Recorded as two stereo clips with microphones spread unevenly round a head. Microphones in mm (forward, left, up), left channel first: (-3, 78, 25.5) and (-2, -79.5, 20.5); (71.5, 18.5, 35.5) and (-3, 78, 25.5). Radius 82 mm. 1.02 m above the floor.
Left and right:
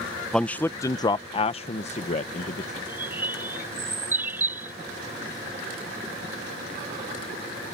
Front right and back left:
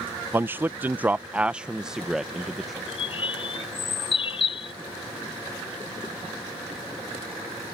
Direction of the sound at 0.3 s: 175° left.